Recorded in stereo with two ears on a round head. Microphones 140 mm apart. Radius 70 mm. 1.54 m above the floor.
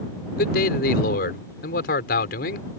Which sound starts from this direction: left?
A man speaking, at 0.4 s.